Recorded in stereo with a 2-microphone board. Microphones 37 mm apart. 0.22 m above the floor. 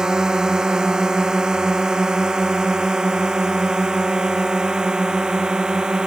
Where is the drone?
20° right (ahead or behind); by 6.1 s 25° right (ahead or behind).